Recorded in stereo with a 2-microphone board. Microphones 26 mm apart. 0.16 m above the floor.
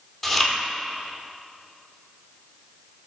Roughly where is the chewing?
Centre.